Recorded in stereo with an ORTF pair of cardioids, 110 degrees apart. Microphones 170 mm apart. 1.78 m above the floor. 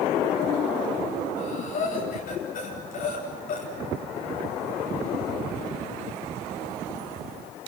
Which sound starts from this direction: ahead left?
Breathing, at 1.4 s.